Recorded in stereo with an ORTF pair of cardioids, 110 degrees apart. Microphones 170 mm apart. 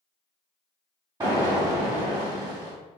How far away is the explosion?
About 1.7 m.